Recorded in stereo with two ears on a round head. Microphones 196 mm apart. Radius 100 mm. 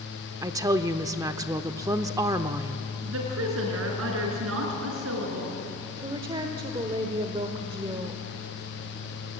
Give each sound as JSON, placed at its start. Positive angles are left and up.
{"t": 0.4, "sound": "a woman speaking", "side_deg": -15, "distance_m": 0.7}
{"t": 3.0, "sound": "a woman speaking", "side_deg": -70, "distance_m": 5.5}
{"t": 6.0, "sound": "a woman speaking", "side_deg": -25, "distance_m": 1.3}